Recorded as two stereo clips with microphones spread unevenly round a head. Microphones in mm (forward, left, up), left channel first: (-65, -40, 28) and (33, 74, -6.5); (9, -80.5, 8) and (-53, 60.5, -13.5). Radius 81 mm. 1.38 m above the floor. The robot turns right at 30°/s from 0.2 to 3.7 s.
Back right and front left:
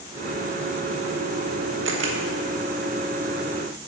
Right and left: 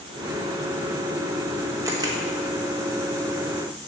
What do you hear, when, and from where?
1.9 s a camera shutter: 40° left, 1.2 m; by 2.2 s 45° left, 1.2 m